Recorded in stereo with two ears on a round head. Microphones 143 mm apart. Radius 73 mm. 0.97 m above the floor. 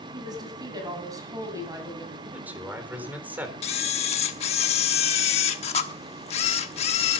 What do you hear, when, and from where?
0.1 s a woman speaking: 30° right (ahead or behind), 6.5 m; by 2.1 s 20° right (ahead or behind), 6.5 m
2.2 s a man speaking: 10° right (ahead or behind), 4 m
3.6 s a camera shutter: 40° left (ahead or behind), 1.2 m